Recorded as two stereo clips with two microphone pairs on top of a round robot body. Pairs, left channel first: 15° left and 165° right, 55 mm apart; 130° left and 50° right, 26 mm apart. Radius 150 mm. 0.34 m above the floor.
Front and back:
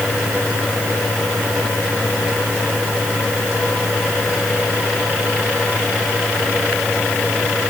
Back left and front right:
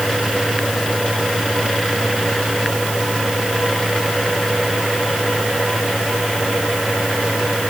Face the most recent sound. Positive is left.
No sound to turn to.